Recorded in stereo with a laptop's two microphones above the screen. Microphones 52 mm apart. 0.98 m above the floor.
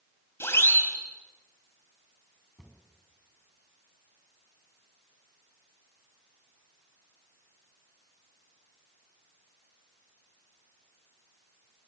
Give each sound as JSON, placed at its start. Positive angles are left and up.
{"t": 0.4, "sound": "a siren", "side_deg": 55, "distance_m": 4.5}
{"t": 2.6, "sound": "a cupboard door", "side_deg": 0, "distance_m": 4.5}